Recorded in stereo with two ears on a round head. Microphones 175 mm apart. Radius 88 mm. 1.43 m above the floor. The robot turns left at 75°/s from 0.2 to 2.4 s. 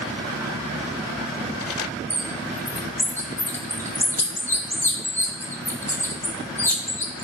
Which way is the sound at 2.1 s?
5° right (ahead or behind).